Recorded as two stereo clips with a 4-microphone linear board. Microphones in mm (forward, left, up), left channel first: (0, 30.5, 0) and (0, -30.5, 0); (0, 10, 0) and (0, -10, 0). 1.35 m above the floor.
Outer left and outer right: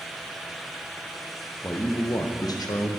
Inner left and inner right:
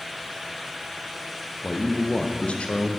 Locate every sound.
1.6 s a man speaking: 30° left (ahead or behind), 1.0 m; by 3.0 s 85° left, 1.2 m